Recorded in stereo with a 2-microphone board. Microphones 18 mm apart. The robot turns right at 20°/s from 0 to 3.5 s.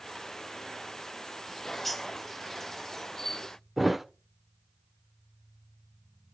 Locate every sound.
1.5 s a bird: centre (ahead or behind), 1.1 m; by 3.6 s 35° left (ahead or behind), 1.1 m
3.8 s a thud: 10° right (ahead or behind), 1.0 m